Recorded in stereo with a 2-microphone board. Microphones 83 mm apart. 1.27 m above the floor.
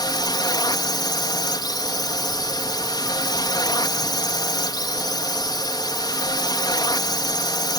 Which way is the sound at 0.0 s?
65° left (ahead or behind).